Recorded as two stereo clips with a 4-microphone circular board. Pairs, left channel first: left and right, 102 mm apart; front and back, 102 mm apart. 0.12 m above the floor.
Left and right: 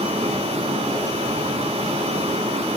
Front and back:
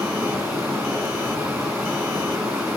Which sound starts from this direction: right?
Running water, at 0.0 s.